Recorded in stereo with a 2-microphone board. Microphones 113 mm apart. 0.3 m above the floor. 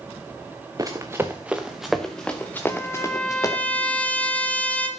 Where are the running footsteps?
30° right (ahead or behind), 2 m; by 3.6 s 30° left (ahead or behind), 3 m.